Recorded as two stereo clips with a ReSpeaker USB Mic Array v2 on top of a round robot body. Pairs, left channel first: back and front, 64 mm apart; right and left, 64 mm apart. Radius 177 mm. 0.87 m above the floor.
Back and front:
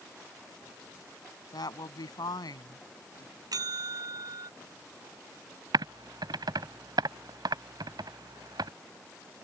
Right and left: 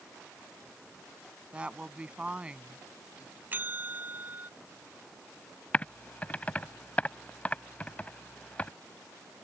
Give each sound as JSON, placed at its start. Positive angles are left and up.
{"t": 1.5, "sound": "a woman speaking", "azimuth_deg": 165}
{"t": 3.5, "sound": "a bell", "azimuth_deg": 25}
{"t": 5.7, "sound": "typing on a keyboard", "azimuth_deg": -20}